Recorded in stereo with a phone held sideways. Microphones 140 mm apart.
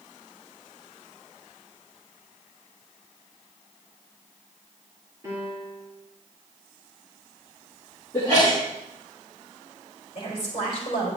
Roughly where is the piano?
Right.